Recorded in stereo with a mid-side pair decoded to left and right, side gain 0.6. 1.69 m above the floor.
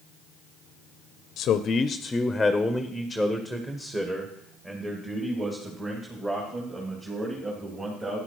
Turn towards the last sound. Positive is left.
turn(degrees=-30)